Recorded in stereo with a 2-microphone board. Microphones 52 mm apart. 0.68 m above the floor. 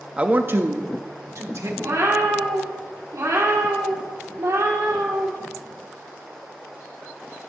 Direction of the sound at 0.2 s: 20° right (ahead or behind).